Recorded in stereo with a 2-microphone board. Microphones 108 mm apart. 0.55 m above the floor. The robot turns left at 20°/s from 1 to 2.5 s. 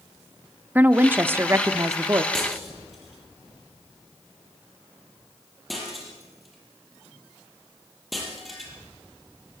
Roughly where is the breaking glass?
Centre.